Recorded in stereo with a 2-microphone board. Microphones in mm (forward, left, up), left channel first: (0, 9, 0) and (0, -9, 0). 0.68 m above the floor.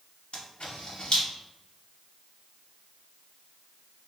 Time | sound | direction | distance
0.3 | a camera shutter | 65° left (ahead or behind) | 1.2 m